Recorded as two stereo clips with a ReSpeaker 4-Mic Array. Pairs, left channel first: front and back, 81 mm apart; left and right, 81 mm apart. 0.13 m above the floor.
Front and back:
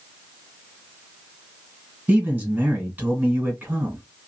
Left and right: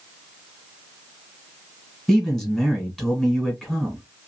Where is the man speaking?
170° left, 1.6 m.